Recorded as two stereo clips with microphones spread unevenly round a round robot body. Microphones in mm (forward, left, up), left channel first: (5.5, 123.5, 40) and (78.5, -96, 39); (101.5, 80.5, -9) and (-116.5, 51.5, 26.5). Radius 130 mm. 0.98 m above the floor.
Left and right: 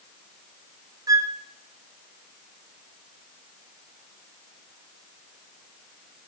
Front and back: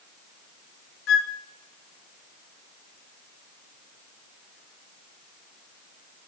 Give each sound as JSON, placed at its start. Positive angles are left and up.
{"t": 1.1, "sound": "a flute", "azimuth_deg": 5, "distance_m": 0.7}